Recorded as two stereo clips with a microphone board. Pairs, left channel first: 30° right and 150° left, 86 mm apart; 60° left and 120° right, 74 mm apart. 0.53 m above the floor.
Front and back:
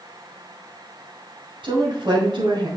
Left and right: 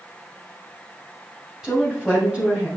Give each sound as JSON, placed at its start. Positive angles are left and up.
{"t": 1.6, "sound": "a woman speaking", "azimuth_deg": 160, "distance_m": 3.0}